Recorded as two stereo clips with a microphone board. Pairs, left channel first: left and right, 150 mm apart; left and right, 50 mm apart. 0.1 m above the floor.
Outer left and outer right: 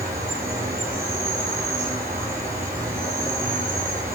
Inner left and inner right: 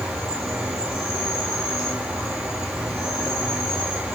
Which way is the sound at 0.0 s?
15° right (ahead or behind).